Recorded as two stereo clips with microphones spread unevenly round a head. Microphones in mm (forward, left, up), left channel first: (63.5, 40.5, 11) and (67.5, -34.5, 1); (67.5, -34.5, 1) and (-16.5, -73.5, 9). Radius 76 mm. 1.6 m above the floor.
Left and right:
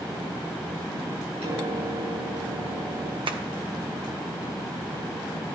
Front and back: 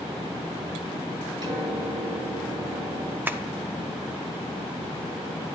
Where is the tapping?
85° right, 1.1 m.